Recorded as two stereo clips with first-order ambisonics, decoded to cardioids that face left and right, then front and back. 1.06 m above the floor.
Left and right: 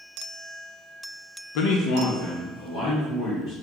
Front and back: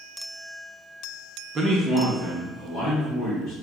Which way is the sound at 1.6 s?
110° left.